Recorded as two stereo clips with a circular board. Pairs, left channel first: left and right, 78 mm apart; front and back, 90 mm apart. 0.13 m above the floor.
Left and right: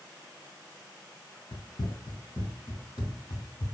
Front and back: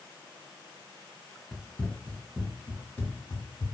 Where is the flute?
No flute in this recording.